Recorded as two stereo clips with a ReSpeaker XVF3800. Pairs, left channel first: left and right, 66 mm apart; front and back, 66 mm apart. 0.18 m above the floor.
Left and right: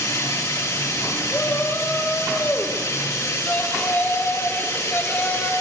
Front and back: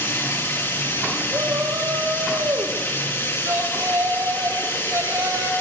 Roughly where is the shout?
Behind left.